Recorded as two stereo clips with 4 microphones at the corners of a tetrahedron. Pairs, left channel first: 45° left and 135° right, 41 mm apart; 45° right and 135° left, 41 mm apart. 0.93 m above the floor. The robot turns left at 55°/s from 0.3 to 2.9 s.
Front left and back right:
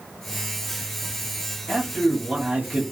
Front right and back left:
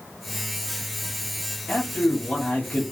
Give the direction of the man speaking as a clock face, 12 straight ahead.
12 o'clock.